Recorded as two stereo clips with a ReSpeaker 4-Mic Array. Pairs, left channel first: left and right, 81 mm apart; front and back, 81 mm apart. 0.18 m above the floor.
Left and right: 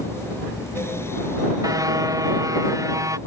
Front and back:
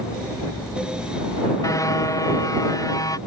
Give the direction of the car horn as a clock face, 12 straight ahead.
2 o'clock.